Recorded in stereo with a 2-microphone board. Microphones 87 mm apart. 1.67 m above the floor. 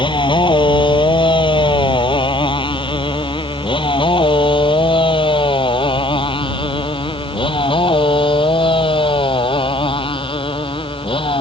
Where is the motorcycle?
65° left (ahead or behind); by 11.4 s 80° left.